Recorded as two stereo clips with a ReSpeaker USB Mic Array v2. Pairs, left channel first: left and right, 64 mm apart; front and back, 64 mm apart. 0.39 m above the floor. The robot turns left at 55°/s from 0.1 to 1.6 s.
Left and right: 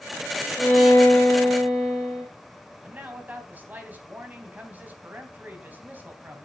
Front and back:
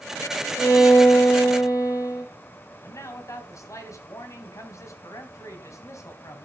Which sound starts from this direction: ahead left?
A violin, at 0.6 s.